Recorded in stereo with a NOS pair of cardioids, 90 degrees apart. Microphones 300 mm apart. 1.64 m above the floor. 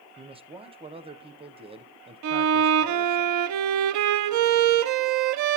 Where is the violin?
70° right, 0.6 m.